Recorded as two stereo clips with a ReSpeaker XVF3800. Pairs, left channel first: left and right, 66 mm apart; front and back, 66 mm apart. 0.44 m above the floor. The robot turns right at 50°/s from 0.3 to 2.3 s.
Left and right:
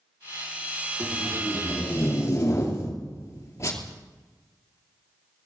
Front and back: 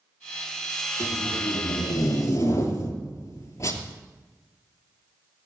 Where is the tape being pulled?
25° right, 2.5 m; by 3.9 s 40° left, 2.5 m.